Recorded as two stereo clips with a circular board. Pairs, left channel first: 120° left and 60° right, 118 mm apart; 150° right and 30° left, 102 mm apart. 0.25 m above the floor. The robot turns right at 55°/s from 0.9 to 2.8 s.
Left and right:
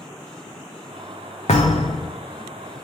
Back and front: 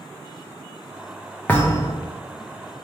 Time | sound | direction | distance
1.5 | a thud | 135° left | 0.8 m